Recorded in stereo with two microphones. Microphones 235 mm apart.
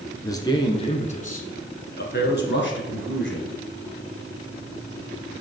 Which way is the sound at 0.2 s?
15° left (ahead or behind).